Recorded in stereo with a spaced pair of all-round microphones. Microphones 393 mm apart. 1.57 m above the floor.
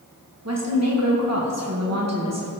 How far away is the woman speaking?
About 1.2 m.